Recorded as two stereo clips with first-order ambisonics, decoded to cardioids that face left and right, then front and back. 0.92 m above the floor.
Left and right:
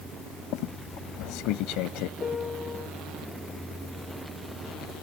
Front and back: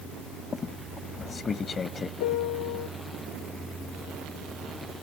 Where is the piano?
15° left.